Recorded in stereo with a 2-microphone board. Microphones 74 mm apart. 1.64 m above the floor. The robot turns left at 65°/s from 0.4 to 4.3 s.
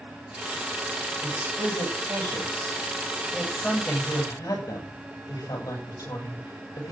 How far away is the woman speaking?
About 8.5 m.